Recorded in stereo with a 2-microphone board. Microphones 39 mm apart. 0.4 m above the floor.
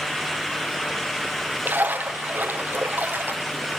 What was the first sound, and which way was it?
A splash, 50° right (ahead or behind).